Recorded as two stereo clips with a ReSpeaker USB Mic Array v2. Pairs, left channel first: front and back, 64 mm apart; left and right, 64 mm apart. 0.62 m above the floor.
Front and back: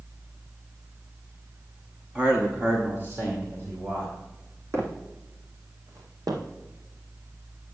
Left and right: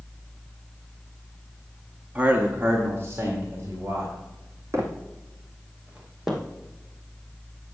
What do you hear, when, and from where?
2.1 s a man speaking: 135° right, 1.2 m
4.7 s footsteps: 135° right, 2.0 m; by 6.4 s straight behind, 1.9 m